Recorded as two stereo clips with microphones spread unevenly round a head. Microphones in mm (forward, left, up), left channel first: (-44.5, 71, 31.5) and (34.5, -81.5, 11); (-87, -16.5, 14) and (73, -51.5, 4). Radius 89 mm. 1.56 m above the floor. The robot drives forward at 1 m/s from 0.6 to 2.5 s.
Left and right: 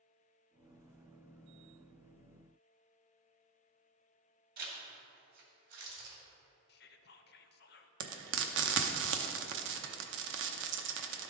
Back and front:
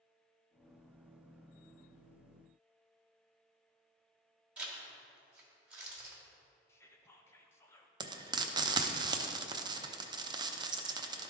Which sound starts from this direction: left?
Whispering, at 6.7 s.